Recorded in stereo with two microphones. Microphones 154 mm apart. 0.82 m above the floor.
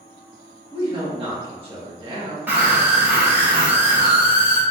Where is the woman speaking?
30° right (ahead or behind), 1.4 m.